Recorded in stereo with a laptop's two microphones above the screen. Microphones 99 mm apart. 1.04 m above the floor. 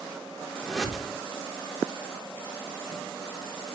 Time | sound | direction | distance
0.6 | a whoosh | centre (ahead or behind) | 3.5 m